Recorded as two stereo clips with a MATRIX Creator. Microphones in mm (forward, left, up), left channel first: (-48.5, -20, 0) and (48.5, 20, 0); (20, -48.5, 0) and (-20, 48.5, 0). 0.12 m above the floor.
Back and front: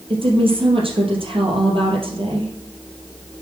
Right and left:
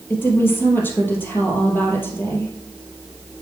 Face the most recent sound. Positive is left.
turn(degrees=0)